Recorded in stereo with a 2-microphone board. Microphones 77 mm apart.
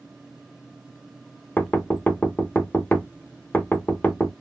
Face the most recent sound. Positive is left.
turn(degrees=20)  # may be behind; listen again after turning